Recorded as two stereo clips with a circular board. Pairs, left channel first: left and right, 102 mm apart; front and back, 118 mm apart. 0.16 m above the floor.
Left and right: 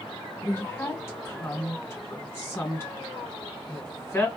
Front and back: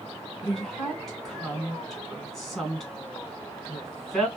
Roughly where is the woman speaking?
Left.